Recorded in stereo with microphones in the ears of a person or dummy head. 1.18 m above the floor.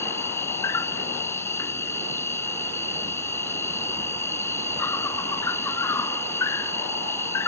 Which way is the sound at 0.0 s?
15° left (ahead or behind).